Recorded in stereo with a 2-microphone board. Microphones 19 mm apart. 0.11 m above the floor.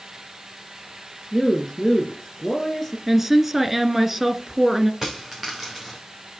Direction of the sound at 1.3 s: 15° left (ahead or behind).